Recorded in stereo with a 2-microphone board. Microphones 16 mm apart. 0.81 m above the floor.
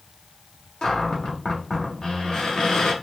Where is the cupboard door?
50° left (ahead or behind), 1.6 m.